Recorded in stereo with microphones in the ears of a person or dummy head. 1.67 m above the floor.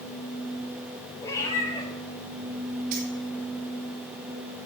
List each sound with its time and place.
1.2 s a cat meowing: 25° left (ahead or behind), 4.5 m
2.9 s keys jangling: 45° right (ahead or behind), 3 m